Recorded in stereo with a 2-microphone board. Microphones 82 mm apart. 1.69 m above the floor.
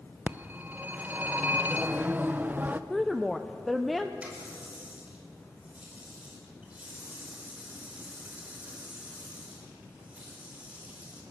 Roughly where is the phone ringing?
Right.